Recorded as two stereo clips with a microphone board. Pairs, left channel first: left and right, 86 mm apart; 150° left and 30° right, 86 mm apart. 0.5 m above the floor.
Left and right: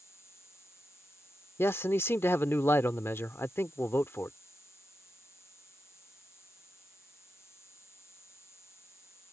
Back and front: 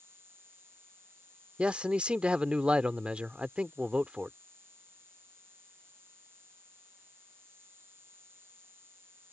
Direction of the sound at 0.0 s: 30° left.